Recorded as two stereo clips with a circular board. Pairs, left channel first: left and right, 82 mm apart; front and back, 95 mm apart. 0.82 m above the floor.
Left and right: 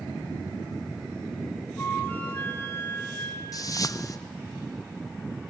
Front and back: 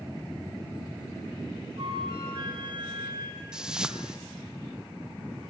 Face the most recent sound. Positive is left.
turn(degrees=100)